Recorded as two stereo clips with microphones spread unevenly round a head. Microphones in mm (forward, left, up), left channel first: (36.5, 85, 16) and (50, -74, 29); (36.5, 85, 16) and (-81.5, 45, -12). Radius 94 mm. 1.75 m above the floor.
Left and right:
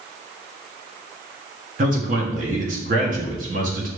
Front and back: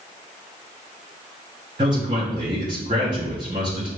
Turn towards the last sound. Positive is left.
turn(degrees=-95)